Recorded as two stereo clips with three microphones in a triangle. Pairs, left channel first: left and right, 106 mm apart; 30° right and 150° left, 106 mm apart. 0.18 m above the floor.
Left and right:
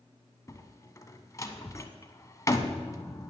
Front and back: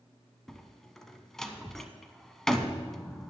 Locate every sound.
0.5 s a door slam: 55° left, 0.8 m